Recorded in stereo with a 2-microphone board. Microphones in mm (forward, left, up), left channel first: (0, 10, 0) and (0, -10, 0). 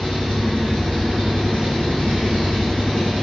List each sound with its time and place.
0.0 s an engine running: 60° left (ahead or behind), 1.6 m